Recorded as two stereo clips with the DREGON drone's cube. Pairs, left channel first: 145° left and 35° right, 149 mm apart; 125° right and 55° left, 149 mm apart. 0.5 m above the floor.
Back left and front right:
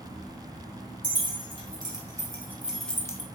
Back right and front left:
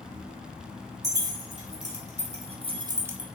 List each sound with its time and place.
1.0 s keys jangling: 20° left, 1.7 m; by 3.2 s 130° left, 0.5 m